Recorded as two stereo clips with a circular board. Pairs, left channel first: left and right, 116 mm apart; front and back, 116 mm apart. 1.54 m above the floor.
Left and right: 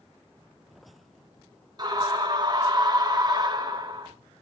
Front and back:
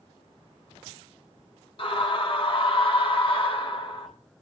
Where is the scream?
40° right, 2.5 m.